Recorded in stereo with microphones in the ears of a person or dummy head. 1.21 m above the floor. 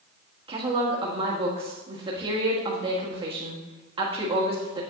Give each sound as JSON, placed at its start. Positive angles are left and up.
{"t": 0.5, "sound": "a woman speaking", "side_deg": -30, "distance_m": 1.6}